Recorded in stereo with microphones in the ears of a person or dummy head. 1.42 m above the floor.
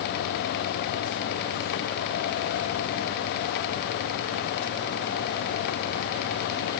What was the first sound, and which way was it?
Only background noise.